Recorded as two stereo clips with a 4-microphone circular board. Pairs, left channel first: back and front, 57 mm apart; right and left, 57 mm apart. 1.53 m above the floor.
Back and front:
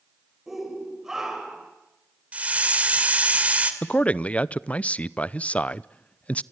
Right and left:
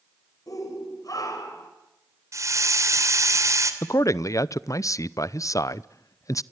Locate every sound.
0.5 s a shout: 85° right, 7 m; by 1.7 s 80° right, 7 m
2.3 s a hiss: 65° left, 2.5 m
3.8 s a man speaking: 115° right, 0.7 m